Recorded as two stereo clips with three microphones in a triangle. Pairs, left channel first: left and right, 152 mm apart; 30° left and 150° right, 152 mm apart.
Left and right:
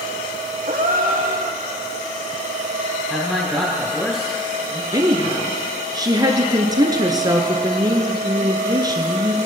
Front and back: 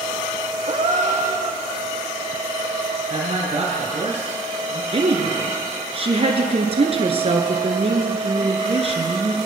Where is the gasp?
110° right, 1.4 m.